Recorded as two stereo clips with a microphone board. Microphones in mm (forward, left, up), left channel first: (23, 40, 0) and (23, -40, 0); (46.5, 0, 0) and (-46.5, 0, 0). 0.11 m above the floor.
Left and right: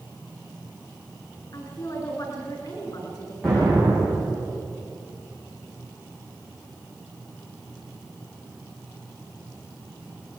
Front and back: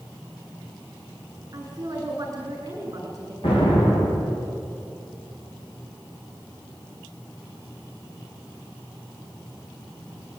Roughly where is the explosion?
Ahead.